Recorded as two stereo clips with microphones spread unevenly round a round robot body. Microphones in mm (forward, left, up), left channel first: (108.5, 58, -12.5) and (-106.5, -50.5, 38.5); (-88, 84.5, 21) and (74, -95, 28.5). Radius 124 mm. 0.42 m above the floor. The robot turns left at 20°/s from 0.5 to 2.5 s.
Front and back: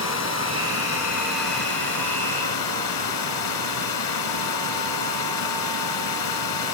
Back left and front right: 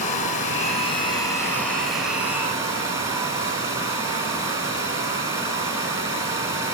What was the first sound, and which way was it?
Running water, 70° left.